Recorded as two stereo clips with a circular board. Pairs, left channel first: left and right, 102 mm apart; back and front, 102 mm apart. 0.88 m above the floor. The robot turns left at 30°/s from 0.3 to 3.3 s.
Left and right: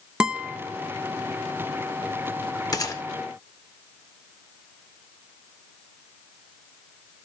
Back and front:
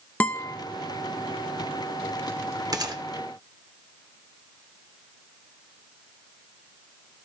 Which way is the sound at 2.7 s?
45° left.